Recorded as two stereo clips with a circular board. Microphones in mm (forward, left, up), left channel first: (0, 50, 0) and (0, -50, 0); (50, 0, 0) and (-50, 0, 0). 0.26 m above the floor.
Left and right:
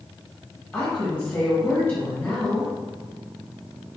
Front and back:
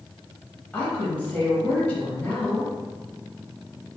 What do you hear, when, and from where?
0.7 s a woman speaking: 50° left, 1.0 m